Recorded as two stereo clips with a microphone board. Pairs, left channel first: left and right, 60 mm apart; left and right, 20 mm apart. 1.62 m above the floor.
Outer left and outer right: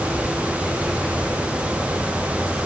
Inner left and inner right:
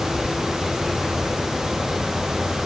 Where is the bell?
I don't hear a bell.